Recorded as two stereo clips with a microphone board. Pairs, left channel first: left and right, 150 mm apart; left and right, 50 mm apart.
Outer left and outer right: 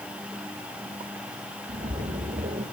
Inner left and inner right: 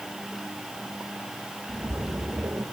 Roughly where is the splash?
Right.